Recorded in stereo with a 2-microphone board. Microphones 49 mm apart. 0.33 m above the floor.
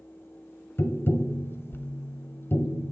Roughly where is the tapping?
Left.